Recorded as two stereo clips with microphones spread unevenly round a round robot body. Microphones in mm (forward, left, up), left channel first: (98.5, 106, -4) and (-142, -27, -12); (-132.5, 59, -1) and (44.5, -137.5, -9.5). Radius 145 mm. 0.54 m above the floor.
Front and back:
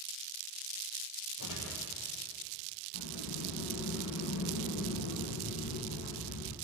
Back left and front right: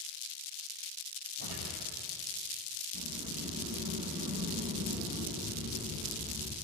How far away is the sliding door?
About 3.5 m.